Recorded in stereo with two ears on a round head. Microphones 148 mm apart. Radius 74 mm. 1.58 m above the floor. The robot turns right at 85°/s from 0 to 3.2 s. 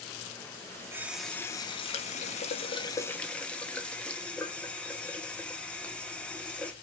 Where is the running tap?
25° right, 0.7 m; by 6.7 s 170° left, 0.7 m.